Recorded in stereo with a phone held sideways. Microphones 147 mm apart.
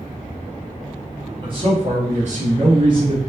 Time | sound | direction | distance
1.4 | a man speaking | 35° right (ahead or behind) | 0.9 m